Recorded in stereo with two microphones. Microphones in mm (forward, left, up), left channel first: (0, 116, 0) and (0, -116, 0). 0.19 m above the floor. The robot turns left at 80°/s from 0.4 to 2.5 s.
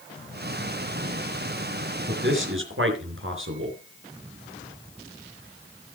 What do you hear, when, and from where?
2.1 s a man speaking: 45° right (ahead or behind), 3.5 m; by 3.8 s 60° right (ahead or behind), 3.5 m